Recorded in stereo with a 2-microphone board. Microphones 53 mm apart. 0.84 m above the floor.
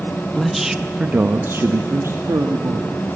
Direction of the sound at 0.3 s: 5° left (ahead or behind).